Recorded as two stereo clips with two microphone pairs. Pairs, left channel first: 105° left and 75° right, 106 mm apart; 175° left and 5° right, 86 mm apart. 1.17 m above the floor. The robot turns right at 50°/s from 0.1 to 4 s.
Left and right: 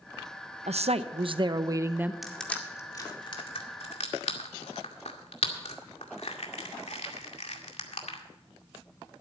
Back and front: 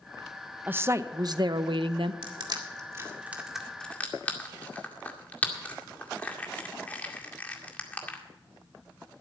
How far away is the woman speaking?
About 0.8 m.